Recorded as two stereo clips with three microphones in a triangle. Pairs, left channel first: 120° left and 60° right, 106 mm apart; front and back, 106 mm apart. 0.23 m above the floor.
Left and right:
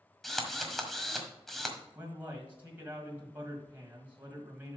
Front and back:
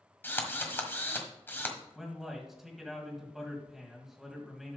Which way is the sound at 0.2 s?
35° left.